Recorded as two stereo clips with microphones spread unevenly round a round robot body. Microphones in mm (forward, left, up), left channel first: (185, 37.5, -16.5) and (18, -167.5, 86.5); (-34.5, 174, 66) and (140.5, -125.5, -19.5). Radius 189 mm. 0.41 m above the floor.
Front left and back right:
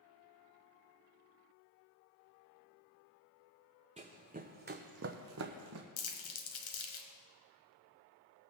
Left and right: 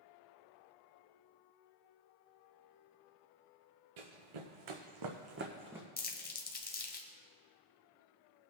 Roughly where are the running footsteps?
Right.